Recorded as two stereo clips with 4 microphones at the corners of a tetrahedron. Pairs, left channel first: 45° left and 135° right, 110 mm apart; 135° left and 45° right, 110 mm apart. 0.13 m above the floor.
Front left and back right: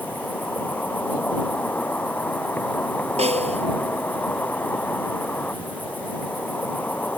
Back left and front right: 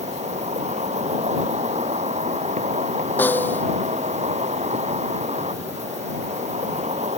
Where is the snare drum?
150° right.